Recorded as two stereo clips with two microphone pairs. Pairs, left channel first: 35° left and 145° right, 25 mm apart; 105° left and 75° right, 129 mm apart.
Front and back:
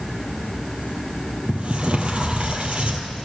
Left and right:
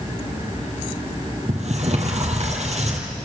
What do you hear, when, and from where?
1.5 s a sliding door: 105° right, 3.5 m